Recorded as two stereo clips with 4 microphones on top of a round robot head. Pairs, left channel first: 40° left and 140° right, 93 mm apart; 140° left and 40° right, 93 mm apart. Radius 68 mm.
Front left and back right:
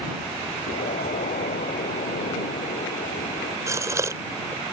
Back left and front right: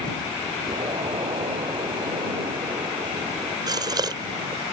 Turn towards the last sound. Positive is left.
turn(degrees=-85)